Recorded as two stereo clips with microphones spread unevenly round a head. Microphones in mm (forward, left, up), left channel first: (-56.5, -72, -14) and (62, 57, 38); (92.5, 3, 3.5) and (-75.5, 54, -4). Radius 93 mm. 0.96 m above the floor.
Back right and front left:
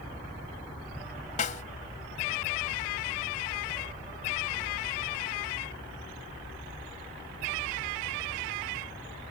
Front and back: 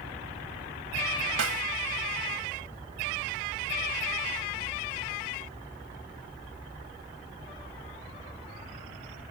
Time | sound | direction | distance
1.4 | a snare drum | 175° left | ?